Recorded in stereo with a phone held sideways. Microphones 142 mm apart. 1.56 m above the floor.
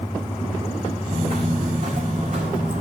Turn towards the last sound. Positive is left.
turn(degrees=-65)  # may be behind; listen again after turning